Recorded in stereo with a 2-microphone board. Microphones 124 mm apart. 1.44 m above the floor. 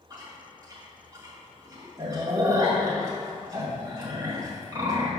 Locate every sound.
0.1 s chewing: 25° right (ahead or behind), 2 m